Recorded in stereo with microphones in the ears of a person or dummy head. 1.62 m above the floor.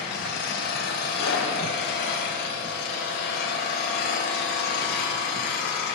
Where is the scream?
85° left, 1.3 m.